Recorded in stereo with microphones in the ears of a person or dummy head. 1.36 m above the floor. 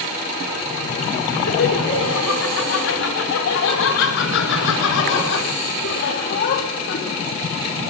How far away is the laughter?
About 5.5 m.